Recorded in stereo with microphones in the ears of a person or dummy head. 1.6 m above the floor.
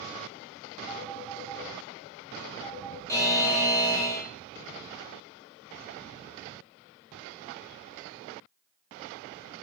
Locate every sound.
0.9 s a phone ringing: 10° right (ahead or behind), 1.8 m
3.1 s a buzzer: 10° left (ahead or behind), 1.4 m